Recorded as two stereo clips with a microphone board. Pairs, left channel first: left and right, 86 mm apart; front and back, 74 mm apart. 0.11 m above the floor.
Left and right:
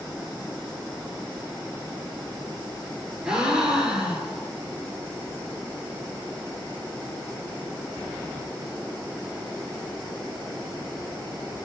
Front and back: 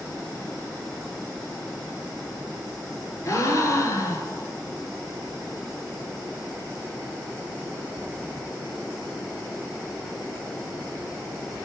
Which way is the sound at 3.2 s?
15° right.